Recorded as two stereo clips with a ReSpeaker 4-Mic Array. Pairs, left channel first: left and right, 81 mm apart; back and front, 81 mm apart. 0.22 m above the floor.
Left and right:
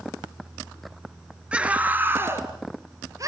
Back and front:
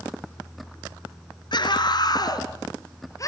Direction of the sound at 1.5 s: 165° right.